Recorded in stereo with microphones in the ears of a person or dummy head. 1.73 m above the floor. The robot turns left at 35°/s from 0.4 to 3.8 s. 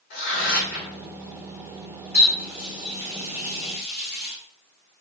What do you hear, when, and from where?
0.1 s tearing paper: 55° left (ahead or behind), 1.9 m; by 0.9 s 75° left (ahead or behind), 1.9 m
2.1 s a running tap: 10° left (ahead or behind), 1.0 m; by 4.3 s 45° left (ahead or behind), 1.0 m